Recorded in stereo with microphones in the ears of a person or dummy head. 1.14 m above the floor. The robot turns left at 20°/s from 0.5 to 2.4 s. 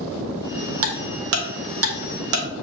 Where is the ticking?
70° right (ahead or behind), 0.8 m; by 2.5 s 65° right (ahead or behind), 0.8 m.